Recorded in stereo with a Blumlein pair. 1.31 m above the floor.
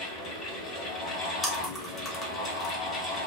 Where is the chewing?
20° left, 1.0 m.